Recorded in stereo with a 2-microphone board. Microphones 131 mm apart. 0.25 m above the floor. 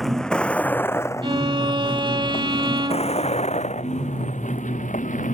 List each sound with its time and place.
0.0 s a vehicle: centre (ahead or behind); by 5.3 s 75° left (ahead or behind)
1.2 s a violin: 40° right (ahead or behind)